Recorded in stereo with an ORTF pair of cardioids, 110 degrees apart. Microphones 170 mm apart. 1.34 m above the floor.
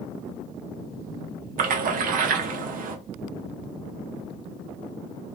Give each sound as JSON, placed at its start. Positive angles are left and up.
{"t": 1.6, "sound": "a splash", "azimuth_deg": -60, "distance_m": 0.7}